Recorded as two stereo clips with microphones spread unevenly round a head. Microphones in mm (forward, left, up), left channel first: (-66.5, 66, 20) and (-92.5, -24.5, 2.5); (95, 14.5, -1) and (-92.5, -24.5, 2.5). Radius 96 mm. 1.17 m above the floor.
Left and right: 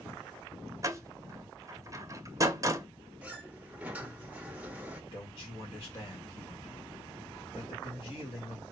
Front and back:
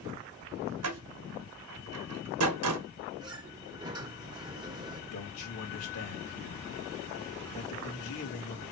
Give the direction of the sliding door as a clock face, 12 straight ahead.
6 o'clock.